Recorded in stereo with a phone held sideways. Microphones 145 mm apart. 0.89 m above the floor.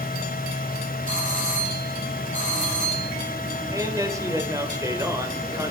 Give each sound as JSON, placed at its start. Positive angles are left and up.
{"t": 0.0, "sound": "a fan", "side_deg": 80, "distance_m": 2.5}
{"t": 1.1, "sound": "a doorbell", "side_deg": -70, "distance_m": 7.5}
{"t": 3.7, "sound": "a man speaking", "side_deg": -20, "distance_m": 4.0}